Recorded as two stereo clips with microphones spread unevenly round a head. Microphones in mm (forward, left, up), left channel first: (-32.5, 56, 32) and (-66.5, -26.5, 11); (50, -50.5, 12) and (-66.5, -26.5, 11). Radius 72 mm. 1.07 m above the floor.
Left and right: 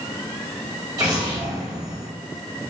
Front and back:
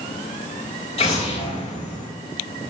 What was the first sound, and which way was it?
An explosion, 45° right.